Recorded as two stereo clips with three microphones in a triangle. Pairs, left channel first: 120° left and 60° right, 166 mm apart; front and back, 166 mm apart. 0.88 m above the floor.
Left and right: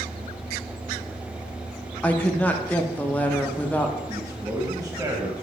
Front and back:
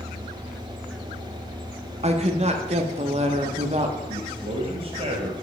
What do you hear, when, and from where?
2.0 s a woman speaking: 160° right, 0.7 m
4.1 s a man speaking: 135° right, 1.0 m